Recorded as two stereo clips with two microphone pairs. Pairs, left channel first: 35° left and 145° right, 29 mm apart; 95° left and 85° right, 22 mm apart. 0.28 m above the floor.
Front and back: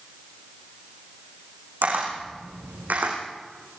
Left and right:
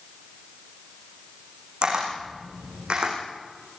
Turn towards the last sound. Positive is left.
turn(degrees=-130)